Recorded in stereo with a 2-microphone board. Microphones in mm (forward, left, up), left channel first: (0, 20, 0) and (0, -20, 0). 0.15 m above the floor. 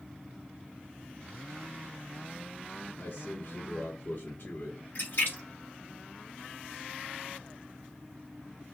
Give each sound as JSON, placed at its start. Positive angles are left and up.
{"t": 3.0, "sound": "a man speaking", "side_deg": 50, "distance_m": 2.5}
{"t": 5.0, "sound": "a splash", "side_deg": 60, "distance_m": 4.0}